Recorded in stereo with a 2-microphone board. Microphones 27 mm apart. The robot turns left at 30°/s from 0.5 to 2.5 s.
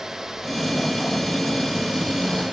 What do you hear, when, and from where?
Only background noise.